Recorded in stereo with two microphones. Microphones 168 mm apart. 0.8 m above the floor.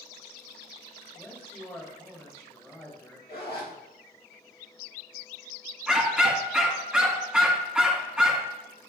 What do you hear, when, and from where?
1.1 s a man speaking: 10° left (ahead or behind), 2.5 m
3.3 s a zipper: 65° left (ahead or behind), 1.8 m
5.9 s a dog barking: 5° right (ahead or behind), 1.8 m